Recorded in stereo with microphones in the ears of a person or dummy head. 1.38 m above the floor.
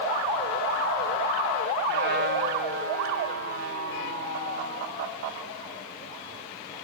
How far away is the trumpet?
About 3.5 m.